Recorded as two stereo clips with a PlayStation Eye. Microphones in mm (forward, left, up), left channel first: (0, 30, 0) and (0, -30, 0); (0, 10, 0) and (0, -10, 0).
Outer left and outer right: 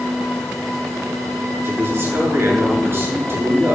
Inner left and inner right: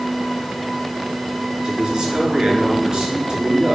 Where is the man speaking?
40° right (ahead or behind), 7.5 m.